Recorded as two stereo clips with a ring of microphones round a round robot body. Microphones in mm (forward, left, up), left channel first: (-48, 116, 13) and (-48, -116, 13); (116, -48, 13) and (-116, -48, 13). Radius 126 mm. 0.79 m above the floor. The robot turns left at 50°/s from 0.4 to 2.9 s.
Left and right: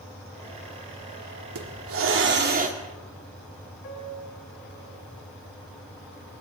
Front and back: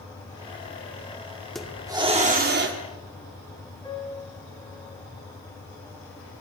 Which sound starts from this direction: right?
A hiss, at 1.6 s.